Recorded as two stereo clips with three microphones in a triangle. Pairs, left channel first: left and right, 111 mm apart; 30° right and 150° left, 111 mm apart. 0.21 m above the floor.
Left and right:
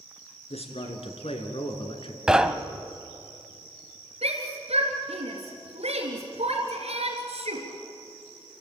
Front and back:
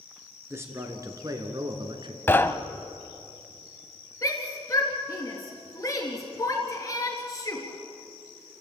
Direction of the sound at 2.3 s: 20° right.